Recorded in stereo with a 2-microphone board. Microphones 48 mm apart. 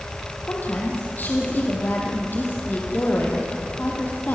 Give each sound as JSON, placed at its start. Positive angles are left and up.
{"t": 0.5, "sound": "a woman speaking", "side_deg": 40, "distance_m": 4.0}